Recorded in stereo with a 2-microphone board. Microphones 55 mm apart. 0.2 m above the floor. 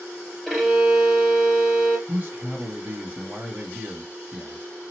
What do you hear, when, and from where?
0.5 s a violin: centre (ahead or behind), 2 m
2.1 s a man speaking: 25° right (ahead or behind), 1.2 m